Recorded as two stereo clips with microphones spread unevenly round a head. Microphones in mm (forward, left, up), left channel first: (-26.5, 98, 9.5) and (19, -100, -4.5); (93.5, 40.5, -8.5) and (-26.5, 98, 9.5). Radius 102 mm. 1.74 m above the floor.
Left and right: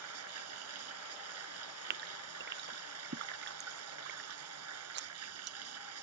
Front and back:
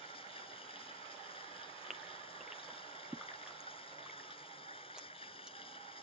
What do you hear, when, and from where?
0.0 s running water: 95° right
1.9 s a gasp: 120° right